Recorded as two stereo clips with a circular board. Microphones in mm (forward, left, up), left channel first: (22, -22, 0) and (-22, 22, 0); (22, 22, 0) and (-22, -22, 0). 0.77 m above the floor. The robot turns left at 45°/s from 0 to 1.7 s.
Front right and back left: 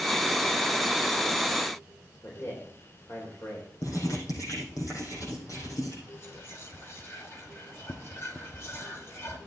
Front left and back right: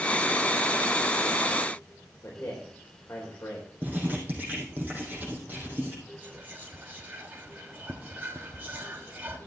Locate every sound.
2.2 s a man speaking: 5° right, 3.5 m
3.8 s writing: 75° right, 4.5 m
6.2 s whispering: 80° right, 1.5 m